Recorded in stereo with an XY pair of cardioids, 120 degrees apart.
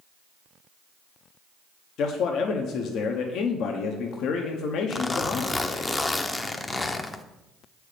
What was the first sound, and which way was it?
A man speaking, 70° left.